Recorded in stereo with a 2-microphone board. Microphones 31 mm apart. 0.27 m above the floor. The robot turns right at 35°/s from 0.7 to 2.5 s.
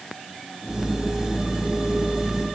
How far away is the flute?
I don't hear a flute.